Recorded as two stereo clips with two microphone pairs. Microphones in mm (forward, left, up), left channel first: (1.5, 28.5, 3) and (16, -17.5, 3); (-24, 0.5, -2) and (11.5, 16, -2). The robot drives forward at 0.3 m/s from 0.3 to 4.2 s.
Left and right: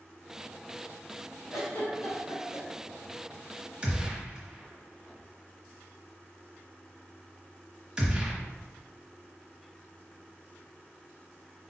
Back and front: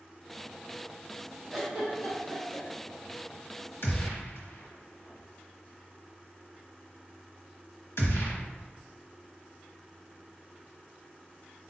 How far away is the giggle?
About 1.5 m.